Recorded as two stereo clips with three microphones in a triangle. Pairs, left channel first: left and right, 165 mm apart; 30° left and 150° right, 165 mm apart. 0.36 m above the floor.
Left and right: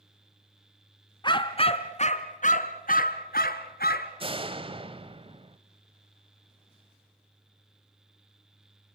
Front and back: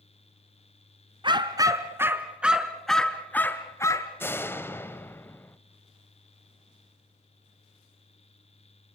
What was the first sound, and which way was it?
A dog barking, 150° left.